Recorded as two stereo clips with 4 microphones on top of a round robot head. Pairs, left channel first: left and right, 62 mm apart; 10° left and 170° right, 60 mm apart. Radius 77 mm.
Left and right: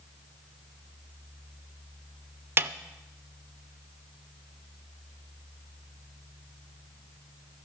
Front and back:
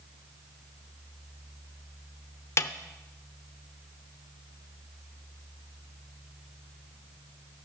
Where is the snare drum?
35° right, 0.7 m.